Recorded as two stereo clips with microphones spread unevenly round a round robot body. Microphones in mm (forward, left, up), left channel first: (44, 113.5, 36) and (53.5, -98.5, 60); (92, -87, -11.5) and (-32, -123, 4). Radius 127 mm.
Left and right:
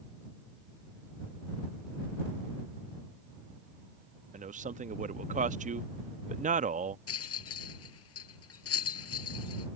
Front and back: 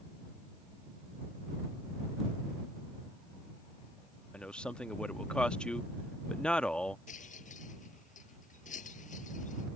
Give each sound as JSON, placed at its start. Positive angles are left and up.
{"t": 4.3, "sound": "a man speaking", "azimuth_deg": -50}
{"t": 7.1, "sound": "a rattle", "azimuth_deg": 80}